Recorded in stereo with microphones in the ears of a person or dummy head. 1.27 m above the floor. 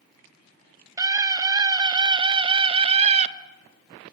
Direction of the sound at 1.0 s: 15° right (ahead or behind).